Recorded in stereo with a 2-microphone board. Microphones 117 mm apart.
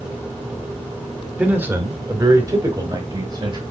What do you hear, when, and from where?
1.4 s a man speaking: 10° right (ahead or behind), 1.7 m; by 3.6 s 35° right (ahead or behind), 3.5 m